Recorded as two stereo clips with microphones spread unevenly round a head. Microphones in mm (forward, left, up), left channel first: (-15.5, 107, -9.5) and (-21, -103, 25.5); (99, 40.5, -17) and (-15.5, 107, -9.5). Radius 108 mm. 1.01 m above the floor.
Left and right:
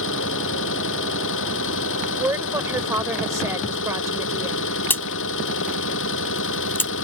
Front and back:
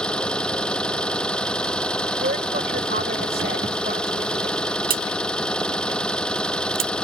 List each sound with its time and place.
0.0 s an engine running: 55° left
2.2 s a woman speaking: 170° right
4.9 s a crack: 170° left